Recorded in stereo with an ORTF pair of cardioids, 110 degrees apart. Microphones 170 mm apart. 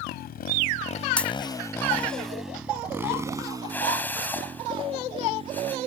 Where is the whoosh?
10° left.